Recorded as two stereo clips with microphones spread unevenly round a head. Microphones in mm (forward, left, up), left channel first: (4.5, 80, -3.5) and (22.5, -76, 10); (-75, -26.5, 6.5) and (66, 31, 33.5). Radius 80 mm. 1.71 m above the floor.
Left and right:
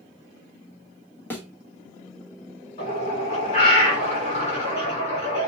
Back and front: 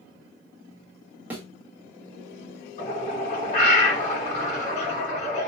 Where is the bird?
150° left, 2 m.